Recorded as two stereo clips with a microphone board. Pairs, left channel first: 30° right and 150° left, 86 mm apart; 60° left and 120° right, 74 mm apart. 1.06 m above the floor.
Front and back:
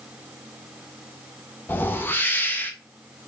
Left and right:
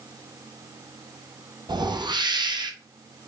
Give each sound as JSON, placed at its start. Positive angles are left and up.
{"t": 1.7, "sound": "a whoosh", "azimuth_deg": -100, "distance_m": 0.7}